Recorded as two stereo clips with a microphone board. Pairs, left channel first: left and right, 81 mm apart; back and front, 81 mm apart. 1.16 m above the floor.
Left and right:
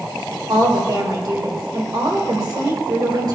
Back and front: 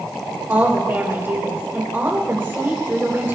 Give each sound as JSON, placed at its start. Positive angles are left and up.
{"t": 0.5, "sound": "a woman speaking", "azimuth_deg": -60, "distance_m": 3.5}